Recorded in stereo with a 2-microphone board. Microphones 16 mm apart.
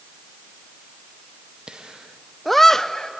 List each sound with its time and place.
1.7 s laughter: 55° right (ahead or behind), 0.8 m; by 3.1 s 45° left (ahead or behind), 0.9 m